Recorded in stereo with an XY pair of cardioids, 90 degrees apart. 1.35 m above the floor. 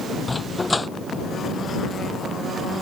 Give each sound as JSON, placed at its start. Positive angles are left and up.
{"t": 0.3, "sound": "a dog barking", "azimuth_deg": 25}